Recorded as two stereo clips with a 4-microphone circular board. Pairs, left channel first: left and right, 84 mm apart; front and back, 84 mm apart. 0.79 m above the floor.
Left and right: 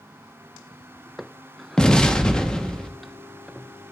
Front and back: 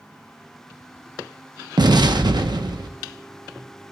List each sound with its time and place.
1.8 s an explosion: 170° left, 0.8 m